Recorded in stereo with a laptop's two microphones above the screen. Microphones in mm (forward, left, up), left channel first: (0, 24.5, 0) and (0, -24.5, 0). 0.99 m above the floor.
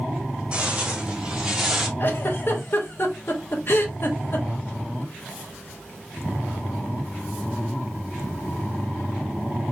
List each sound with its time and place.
0.5 s footsteps: 25° right (ahead or behind), 2 m; by 1.9 s 10° right (ahead or behind), 1.7 m
2.0 s a giggle: 45° left (ahead or behind), 1.1 m